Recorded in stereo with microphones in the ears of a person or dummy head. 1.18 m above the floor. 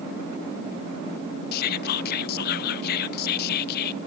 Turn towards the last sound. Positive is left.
turn(degrees=50)  # may be behind; listen again after turning